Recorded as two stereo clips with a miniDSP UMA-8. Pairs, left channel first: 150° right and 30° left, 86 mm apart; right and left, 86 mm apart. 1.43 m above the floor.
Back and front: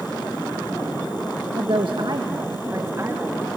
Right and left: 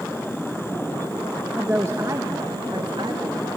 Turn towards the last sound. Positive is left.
turn(degrees=90)